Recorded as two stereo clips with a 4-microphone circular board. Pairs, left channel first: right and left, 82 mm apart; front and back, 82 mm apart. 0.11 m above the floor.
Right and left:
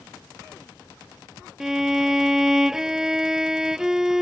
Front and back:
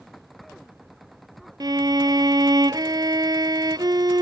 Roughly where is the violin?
Behind.